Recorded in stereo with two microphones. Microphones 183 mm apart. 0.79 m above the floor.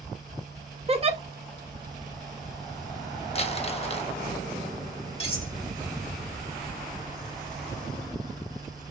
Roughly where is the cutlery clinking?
Left.